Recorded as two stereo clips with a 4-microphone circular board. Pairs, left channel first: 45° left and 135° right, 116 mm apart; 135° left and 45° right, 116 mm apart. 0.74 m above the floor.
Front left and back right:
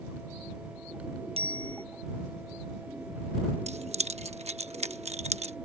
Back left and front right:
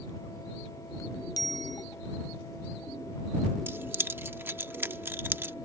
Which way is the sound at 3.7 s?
115° right.